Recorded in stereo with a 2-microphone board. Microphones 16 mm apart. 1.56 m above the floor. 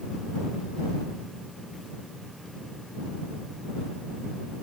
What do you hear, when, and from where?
Only background noise.